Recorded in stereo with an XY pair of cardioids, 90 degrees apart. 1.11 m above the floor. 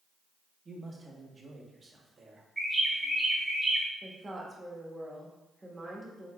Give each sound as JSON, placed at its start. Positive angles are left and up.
{"t": 0.7, "sound": "a man speaking", "azimuth_deg": -40, "distance_m": 1.2}
{"t": 2.6, "sound": "a bird", "azimuth_deg": -20, "distance_m": 1.5}
{"t": 4.0, "sound": "a woman speaking", "azimuth_deg": -25, "distance_m": 1.4}